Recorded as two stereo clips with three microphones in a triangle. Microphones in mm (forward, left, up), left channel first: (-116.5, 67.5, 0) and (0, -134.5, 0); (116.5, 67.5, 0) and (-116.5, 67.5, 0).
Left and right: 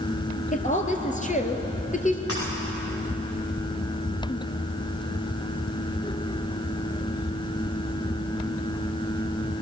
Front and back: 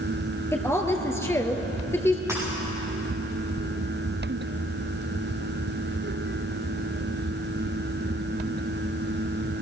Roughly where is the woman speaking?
Left.